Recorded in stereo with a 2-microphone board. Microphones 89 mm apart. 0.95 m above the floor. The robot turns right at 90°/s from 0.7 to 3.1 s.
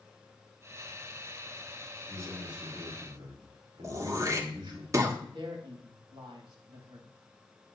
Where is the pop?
No pop in this recording.